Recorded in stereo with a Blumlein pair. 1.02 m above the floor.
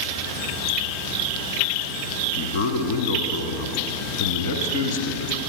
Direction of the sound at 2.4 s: 50° left.